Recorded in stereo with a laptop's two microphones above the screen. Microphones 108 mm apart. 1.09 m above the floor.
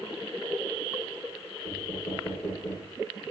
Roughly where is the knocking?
Left.